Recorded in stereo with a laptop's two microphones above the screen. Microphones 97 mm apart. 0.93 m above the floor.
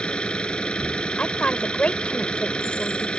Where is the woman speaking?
10° left (ahead or behind).